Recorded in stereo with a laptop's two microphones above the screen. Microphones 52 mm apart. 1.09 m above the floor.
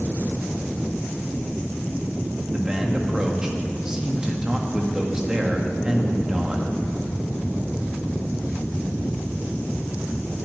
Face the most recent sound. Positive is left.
turn(degrees=-15)  # may be behind; listen again after turning